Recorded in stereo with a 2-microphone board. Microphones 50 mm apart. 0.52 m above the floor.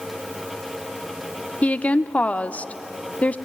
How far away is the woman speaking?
About 0.7 m.